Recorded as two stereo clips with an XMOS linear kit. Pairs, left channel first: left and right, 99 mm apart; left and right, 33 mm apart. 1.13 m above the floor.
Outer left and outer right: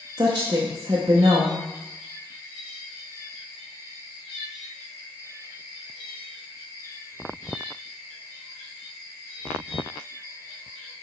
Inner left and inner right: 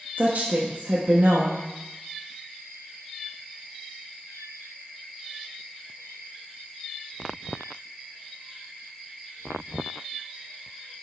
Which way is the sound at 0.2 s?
45° right (ahead or behind).